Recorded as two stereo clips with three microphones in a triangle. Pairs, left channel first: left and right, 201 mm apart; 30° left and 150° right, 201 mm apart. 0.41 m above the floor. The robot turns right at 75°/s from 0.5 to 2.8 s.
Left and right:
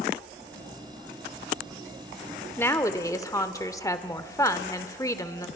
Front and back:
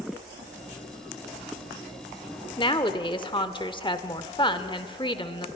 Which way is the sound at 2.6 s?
25° left.